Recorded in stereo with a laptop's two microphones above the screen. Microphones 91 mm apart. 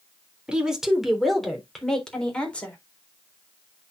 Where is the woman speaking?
10° right (ahead or behind), 3 m; by 2.8 s 15° left (ahead or behind), 3.5 m.